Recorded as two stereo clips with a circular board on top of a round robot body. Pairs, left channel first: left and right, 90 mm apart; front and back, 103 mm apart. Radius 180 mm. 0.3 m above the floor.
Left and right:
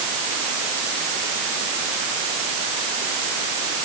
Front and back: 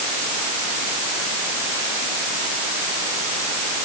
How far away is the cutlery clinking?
No cutlery clinking in this recording.